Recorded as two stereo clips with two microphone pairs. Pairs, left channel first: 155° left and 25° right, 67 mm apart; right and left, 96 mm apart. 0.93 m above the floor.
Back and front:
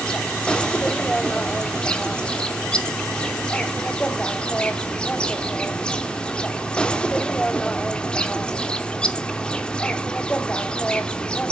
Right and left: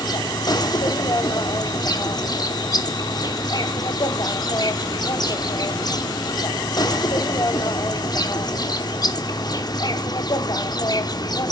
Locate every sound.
0.0 s an insect: 130° right, 1.0 m